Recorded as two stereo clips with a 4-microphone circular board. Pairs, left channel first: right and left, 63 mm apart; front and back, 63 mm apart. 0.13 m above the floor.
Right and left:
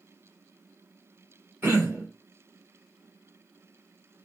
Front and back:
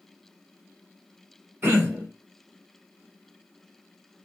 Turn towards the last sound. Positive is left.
turn(degrees=135)